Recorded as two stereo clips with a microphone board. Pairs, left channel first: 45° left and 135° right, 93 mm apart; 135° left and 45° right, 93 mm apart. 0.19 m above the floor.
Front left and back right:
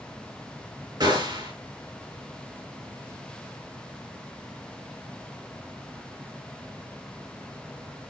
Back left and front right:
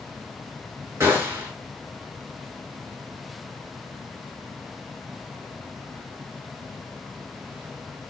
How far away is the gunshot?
About 3 m.